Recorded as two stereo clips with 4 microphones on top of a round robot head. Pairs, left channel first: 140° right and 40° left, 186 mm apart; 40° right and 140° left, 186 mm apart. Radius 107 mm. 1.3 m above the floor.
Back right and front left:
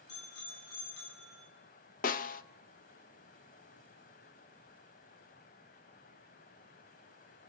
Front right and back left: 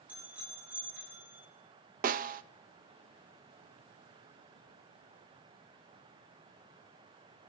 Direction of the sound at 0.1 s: 135° right.